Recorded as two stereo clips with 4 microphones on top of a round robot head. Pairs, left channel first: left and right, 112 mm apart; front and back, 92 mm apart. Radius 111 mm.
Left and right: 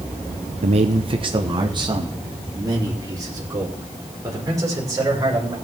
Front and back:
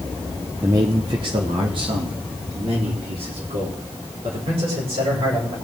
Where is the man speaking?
110° right, 0.6 m; by 5.5 s 150° right, 5.5 m.